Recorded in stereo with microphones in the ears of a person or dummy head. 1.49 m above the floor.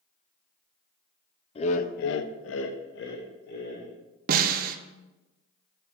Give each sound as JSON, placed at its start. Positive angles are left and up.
{"t": 1.6, "sound": "laughter", "side_deg": 35, "distance_m": 0.7}
{"t": 4.3, "sound": "a snare drum", "side_deg": -50, "distance_m": 0.7}